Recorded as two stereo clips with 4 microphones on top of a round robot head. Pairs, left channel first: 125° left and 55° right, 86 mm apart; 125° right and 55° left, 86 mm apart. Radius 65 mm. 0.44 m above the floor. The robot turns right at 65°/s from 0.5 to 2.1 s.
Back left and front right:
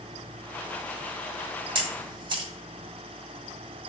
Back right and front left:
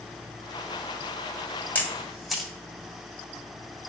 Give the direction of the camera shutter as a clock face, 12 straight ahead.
2 o'clock.